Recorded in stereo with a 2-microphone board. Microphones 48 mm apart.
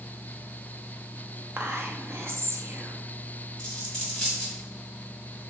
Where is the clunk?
No clunk in this recording.